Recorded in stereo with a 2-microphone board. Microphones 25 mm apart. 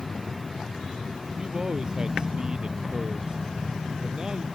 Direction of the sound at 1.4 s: 35° right (ahead or behind).